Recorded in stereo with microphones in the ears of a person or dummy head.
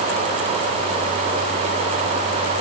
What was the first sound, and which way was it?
Only background noise.